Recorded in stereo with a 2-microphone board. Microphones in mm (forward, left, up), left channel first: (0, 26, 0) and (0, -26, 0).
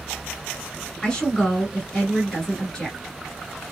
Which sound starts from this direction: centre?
A woman speaking, at 1.0 s.